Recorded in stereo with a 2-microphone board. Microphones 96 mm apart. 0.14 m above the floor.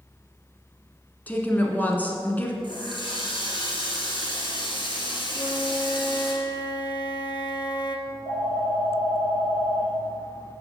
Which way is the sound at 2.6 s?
60° left (ahead or behind).